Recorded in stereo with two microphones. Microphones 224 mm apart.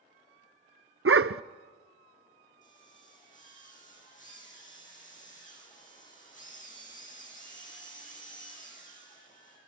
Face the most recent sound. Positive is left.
turn(degrees=35)  # may be behind; listen again after turning